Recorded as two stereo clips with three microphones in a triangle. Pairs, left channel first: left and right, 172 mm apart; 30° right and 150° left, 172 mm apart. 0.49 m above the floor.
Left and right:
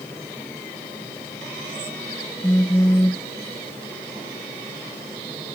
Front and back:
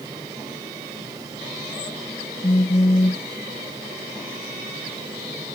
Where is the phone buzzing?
15° left.